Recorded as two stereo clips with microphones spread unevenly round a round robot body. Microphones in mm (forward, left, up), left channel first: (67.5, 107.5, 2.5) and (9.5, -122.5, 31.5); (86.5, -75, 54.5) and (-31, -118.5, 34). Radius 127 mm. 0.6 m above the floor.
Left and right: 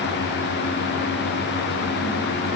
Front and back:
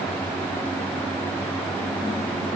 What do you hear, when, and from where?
Only background noise.